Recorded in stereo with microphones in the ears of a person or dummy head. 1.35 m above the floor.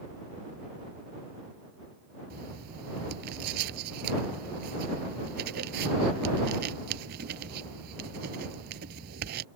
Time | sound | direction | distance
2.3 | writing | 60° right (ahead or behind) | ?